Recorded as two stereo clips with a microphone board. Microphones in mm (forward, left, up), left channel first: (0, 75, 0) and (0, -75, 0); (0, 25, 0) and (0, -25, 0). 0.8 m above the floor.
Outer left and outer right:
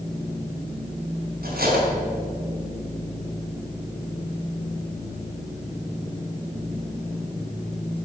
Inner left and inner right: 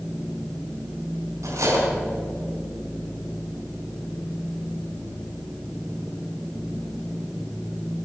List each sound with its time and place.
1.4 s cutlery clinking: 90° right, 4 m